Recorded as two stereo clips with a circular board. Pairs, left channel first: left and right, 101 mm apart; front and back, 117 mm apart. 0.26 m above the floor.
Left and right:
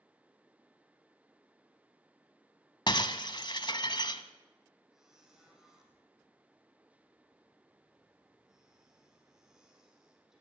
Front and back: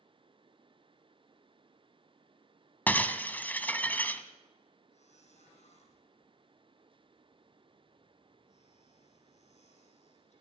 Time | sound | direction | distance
2.9 | breaking glass | 70° left | 1.2 m
4.9 | a squeak | 5° right | 5 m